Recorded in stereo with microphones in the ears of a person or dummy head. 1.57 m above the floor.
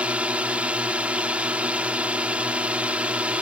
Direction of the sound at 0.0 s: 5° right (ahead or behind).